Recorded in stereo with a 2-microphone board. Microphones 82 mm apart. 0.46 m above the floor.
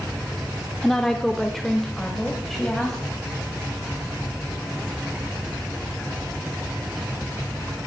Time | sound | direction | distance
0.8 | a woman speaking | 5° left (ahead or behind) | 1.1 m